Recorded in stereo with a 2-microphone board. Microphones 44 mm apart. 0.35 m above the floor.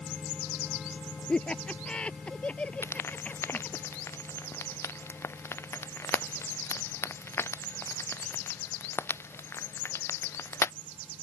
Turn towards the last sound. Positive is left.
turn(degrees=80)